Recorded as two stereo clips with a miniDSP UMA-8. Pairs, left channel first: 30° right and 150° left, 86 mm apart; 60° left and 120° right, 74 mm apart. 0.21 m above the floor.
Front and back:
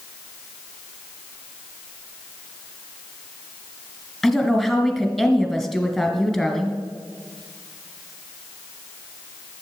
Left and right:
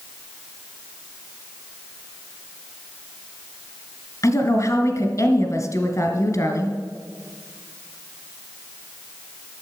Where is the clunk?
No clunk in this recording.